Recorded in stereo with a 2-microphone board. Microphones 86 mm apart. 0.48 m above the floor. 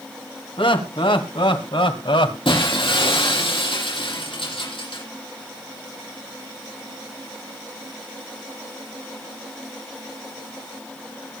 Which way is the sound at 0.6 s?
80° left.